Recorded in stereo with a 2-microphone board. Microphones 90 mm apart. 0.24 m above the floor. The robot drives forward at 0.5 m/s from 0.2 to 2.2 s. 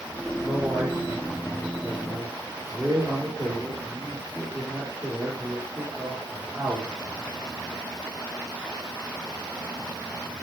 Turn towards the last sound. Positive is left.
turn(degrees=-10)  # may be behind; listen again after turning